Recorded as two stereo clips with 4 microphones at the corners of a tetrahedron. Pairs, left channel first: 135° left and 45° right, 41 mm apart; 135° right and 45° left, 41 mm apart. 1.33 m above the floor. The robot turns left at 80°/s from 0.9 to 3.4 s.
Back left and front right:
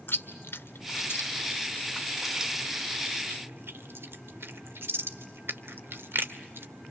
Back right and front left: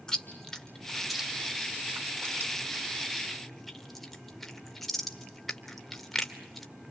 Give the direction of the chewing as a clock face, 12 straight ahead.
7 o'clock.